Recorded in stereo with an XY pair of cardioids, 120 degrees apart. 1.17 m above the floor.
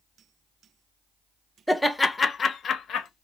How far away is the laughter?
About 0.6 m.